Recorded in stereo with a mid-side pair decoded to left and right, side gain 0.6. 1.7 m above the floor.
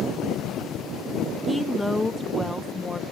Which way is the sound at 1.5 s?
5° left.